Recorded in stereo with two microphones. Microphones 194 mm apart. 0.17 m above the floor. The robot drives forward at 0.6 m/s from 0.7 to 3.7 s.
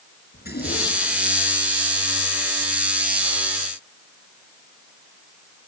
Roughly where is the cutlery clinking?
No cutlery clinking in this recording.